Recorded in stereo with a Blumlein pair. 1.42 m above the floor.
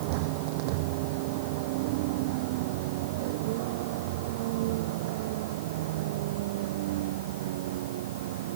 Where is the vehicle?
45° right; by 8.6 s 50° right.